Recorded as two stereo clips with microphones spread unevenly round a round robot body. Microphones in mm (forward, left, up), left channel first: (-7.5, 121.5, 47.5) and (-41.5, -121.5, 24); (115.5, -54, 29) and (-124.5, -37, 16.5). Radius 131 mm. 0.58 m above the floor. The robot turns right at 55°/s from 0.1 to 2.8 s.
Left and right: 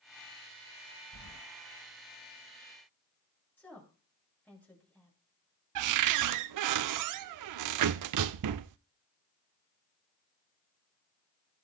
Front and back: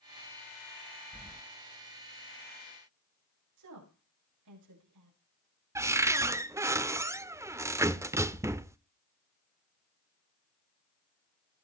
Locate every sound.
1.1 s keys jangling: 80° left, 1.9 m; by 1.4 s 95° left, 1.9 m
3.6 s a woman speaking: 165° left, 8 m
5.8 s a cupboard door: 105° right, 0.5 m